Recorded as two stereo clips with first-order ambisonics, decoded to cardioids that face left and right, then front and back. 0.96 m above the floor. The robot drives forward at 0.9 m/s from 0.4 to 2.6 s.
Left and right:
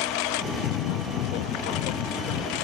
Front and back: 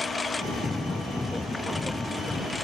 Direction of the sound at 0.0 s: 80° left.